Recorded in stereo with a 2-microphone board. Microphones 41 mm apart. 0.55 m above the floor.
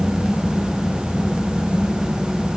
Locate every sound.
Only background noise.